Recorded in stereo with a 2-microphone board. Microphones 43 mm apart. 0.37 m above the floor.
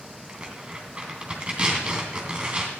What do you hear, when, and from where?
0.3 s tearing paper: 25° right (ahead or behind), 3 m